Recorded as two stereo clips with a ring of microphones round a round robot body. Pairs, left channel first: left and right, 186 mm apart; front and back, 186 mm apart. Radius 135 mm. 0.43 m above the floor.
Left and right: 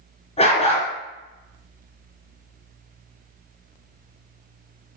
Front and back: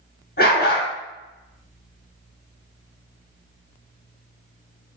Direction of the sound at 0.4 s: 35° left.